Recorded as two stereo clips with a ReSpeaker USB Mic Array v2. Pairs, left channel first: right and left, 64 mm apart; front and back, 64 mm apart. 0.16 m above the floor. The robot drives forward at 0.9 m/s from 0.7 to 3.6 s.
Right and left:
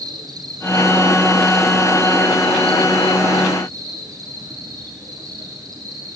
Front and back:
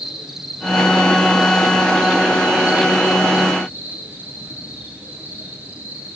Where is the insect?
95° left, 6.5 m; by 6.2 s 115° left, 7.5 m.